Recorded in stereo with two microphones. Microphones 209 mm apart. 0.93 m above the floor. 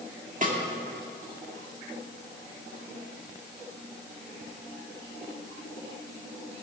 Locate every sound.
0.4 s a snare drum: 40° right (ahead or behind), 2 m